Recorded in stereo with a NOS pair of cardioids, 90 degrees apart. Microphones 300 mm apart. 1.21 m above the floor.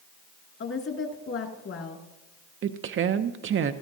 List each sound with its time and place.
0.6 s a woman speaking: 50° left, 2.5 m
2.6 s a woman speaking: 45° right, 0.6 m